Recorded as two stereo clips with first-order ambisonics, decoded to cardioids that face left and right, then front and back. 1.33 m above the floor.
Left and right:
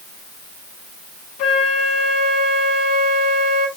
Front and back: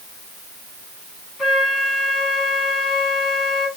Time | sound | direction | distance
1.4 | a flute | 80° left | 1.5 m